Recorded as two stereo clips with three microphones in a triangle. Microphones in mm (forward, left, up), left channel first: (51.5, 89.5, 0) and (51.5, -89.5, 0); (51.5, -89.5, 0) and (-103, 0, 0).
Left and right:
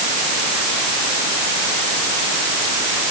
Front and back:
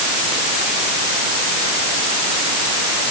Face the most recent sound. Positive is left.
No sound to turn to.